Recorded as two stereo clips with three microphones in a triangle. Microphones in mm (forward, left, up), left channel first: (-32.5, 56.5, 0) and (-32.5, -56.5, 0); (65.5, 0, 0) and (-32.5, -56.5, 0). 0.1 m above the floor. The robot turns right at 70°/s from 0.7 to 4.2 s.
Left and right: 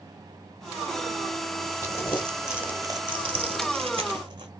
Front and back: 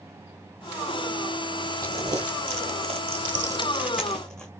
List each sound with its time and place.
1.8 s crumpling: 140° left, 0.8 m; by 4.5 s 55° right, 0.8 m